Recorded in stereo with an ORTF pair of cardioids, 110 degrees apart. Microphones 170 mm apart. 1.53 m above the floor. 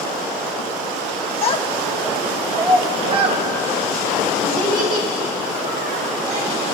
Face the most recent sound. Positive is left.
turn(degrees=-65)